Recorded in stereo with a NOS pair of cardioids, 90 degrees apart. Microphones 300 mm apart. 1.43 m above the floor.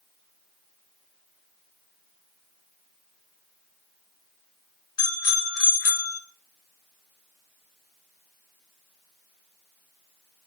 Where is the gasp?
I don't hear a gasp.